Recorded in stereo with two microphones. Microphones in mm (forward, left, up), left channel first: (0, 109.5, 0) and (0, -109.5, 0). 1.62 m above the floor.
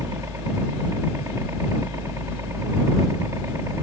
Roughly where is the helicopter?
Centre.